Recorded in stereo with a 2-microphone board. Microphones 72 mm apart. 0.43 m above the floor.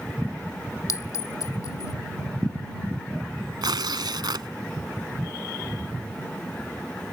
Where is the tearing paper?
85° right.